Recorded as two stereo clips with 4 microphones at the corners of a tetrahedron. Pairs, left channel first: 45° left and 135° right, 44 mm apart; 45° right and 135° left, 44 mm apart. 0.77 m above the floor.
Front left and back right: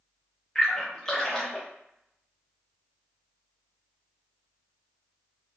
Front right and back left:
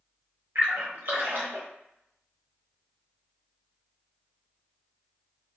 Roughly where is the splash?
Behind left.